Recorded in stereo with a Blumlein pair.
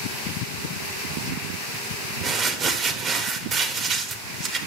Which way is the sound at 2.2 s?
30° right.